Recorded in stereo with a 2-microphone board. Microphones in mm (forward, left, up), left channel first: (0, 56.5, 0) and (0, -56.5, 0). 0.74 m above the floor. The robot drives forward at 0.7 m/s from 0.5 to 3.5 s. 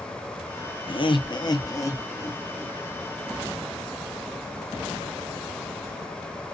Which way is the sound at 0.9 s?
50° left (ahead or behind).